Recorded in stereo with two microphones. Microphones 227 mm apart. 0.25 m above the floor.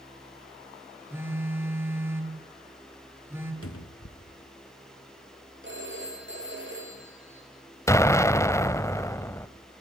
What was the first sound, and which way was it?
A phone buzzing, 10° right (ahead or behind).